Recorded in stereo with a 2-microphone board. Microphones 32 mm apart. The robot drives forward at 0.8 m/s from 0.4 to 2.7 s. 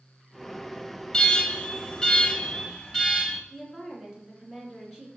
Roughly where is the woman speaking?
Centre.